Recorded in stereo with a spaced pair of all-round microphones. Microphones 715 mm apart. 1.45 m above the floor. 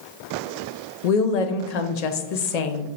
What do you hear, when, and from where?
1.0 s a woman speaking: 65° left (ahead or behind), 0.6 m